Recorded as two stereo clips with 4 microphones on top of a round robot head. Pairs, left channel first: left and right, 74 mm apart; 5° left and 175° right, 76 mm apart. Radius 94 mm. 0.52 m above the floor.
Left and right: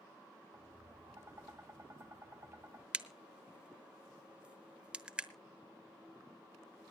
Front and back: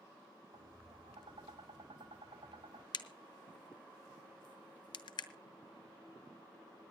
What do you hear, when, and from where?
0.5 s tapping: 155° right, 2.5 m
2.9 s a crack: 15° right, 1.0 m